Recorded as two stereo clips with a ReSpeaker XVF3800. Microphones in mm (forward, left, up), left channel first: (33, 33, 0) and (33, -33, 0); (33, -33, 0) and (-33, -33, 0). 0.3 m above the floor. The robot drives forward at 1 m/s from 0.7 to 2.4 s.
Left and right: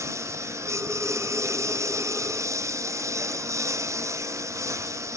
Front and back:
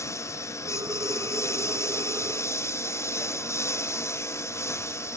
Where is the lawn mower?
45° right; by 5.2 s 50° right.